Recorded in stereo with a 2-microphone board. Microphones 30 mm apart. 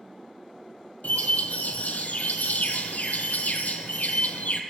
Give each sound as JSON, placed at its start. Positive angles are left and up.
{"t": 1.0, "sound": "a bird", "side_deg": 75, "distance_m": 0.8}